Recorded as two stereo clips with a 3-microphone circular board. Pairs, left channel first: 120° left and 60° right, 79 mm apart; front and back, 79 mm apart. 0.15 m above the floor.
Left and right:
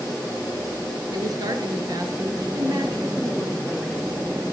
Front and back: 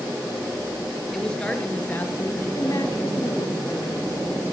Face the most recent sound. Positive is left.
turn(degrees=0)